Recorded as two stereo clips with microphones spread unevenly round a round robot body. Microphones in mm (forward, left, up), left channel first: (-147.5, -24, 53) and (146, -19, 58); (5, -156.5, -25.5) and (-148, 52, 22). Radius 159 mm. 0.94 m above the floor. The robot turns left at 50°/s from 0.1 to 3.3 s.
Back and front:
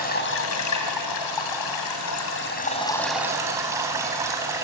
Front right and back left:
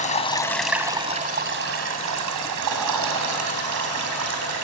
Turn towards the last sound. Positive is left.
turn(degrees=80)